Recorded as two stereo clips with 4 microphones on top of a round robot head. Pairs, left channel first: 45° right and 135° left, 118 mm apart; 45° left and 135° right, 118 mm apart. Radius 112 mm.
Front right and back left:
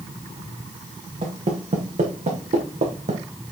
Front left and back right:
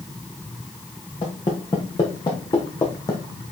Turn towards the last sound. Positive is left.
turn(degrees=105)